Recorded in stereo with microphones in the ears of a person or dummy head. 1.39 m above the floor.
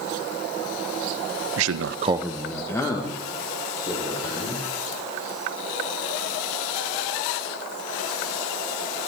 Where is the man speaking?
70° right (ahead or behind), 0.7 m; by 4.7 s 30° left (ahead or behind), 4.5 m.